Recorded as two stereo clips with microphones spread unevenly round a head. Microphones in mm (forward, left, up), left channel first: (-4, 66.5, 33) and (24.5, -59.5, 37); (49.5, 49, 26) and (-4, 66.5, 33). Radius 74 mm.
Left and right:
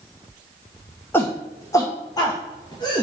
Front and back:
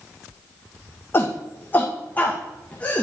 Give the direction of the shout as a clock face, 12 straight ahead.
11 o'clock.